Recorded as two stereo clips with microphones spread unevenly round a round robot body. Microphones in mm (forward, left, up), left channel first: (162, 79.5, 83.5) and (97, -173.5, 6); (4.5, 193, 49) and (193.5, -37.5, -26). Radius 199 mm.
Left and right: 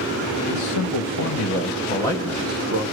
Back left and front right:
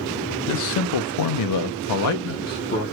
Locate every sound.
0.5 s a man speaking: 100° left, 1.0 m; by 2.9 s 145° right, 0.7 m